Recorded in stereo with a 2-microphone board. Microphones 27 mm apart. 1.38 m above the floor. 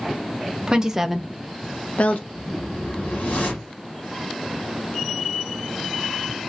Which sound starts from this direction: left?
A whoosh, at 2.3 s.